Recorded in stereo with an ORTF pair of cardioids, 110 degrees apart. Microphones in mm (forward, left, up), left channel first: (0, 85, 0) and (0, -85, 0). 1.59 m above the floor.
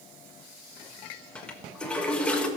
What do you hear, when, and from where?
1.4 s a toilet flushing: 5° left, 1.3 m